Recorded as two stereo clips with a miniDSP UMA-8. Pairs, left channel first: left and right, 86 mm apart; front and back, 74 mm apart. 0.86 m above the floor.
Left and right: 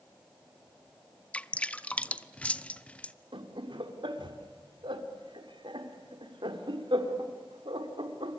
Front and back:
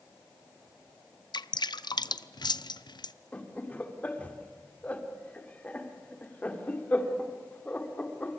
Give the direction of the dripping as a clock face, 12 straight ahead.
12 o'clock.